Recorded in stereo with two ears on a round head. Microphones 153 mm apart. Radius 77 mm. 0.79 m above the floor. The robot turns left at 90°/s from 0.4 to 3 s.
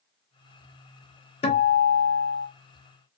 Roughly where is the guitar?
Behind left.